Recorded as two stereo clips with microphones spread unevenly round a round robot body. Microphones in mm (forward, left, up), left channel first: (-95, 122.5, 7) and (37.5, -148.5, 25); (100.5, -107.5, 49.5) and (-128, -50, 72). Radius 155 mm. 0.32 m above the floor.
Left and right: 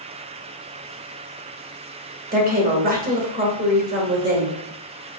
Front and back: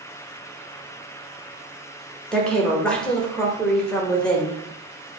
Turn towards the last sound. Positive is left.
turn(degrees=-85)